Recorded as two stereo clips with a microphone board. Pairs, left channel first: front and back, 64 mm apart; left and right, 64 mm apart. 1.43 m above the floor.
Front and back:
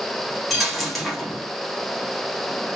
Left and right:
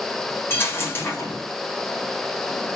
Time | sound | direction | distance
0.5 | a dropped coin | 85° left | 1.1 m